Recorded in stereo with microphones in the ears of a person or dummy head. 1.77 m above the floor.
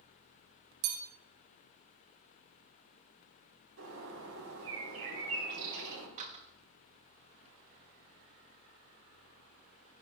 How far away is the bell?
About 1.2 m.